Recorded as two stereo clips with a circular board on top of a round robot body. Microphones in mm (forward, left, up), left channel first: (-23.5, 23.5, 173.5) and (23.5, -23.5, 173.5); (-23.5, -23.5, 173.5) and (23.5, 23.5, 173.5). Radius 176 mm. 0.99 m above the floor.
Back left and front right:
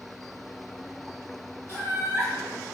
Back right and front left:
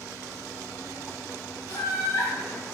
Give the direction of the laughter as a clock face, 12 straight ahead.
3 o'clock.